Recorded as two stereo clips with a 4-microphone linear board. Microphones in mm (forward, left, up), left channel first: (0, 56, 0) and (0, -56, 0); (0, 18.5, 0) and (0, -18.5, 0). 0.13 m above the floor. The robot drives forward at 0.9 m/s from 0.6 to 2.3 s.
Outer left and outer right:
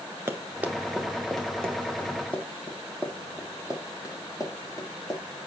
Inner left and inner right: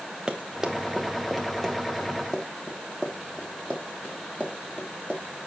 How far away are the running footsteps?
About 1.9 m.